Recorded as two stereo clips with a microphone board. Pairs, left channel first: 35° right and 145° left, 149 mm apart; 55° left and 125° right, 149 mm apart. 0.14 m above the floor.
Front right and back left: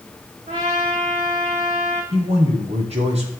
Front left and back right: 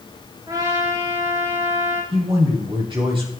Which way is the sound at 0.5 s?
175° left.